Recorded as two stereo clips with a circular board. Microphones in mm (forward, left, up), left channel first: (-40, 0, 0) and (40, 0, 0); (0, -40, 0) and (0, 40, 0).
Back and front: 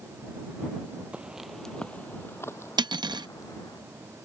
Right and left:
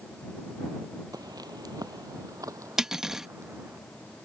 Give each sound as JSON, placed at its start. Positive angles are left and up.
{"t": 1.1, "sound": "footsteps", "azimuth_deg": 70}
{"t": 2.8, "sound": "cutlery clinking", "azimuth_deg": 5}